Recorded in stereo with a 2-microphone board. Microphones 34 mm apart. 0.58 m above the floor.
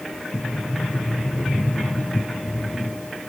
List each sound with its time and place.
0.3 s a sliding door: 45° left (ahead or behind), 3 m